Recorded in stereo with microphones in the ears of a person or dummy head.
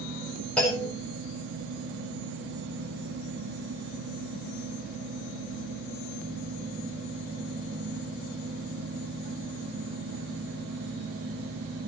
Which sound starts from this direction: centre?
A clunk, at 0.6 s.